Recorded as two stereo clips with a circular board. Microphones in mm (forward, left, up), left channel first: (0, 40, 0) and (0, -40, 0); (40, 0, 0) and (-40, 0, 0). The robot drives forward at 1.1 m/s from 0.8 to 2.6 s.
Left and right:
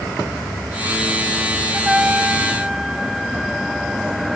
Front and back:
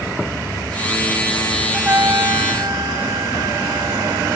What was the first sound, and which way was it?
A trumpet, 150° right.